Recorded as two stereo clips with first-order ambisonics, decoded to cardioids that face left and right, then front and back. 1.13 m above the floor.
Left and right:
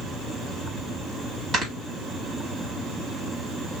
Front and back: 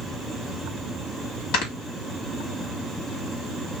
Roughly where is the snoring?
Ahead right.